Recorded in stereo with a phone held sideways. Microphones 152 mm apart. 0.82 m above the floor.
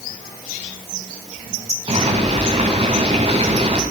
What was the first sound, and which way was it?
Boiling, 40° right (ahead or behind).